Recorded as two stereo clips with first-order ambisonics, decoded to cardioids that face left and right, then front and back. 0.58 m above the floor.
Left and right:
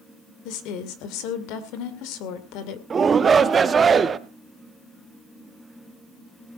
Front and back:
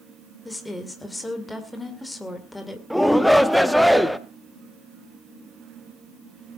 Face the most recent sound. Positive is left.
turn(degrees=-90)